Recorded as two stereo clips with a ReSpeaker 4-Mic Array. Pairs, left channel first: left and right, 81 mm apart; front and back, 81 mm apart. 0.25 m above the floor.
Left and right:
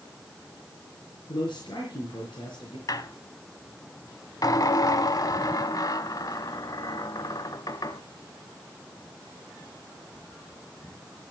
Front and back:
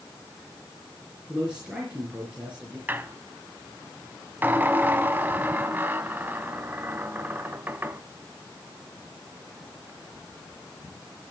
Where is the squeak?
120° left, 0.8 m.